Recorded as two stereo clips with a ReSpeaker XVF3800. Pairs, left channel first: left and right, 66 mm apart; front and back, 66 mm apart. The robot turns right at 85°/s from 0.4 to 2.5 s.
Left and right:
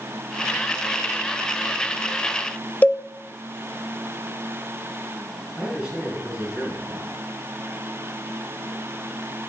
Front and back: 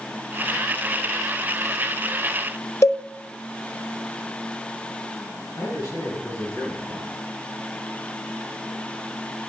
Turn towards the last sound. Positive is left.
turn(degrees=-15)